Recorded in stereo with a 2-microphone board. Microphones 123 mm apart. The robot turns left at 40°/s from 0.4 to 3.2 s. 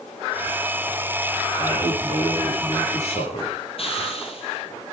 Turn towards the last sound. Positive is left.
turn(degrees=50)  # may be behind; listen again after turning